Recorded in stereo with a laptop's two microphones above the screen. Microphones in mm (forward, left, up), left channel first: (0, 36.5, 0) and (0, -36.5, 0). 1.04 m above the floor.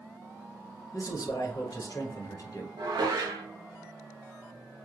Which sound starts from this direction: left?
A man speaking, at 0.9 s.